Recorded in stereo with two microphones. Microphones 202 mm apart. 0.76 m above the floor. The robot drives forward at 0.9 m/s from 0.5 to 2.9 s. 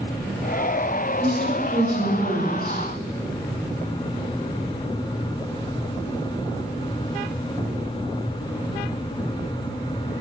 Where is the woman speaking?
60° right (ahead or behind), 4.5 m; by 2.8 s 45° right (ahead or behind), 5 m.